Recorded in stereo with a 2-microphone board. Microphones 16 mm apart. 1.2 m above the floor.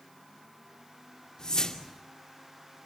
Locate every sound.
1.4 s a whoosh: 50° left (ahead or behind), 2.5 m